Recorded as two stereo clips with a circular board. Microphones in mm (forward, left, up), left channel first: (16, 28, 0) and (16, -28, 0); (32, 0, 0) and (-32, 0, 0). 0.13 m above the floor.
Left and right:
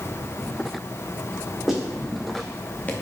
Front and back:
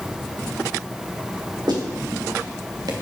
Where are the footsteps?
175° right, 3 m; by 2.9 s 150° left, 1.5 m.